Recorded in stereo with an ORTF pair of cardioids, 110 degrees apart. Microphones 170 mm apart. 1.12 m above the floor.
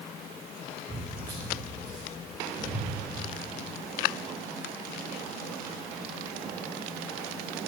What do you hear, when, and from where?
0.9 s footsteps: 30° right, 4.5 m; by 2.9 s 10° right, 6 m